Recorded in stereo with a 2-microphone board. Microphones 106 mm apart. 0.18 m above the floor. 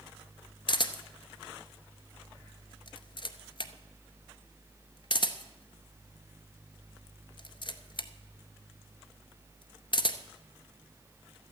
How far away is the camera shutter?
About 0.7 m.